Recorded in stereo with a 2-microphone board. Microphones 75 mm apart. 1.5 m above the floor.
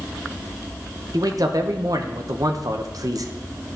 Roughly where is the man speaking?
Right.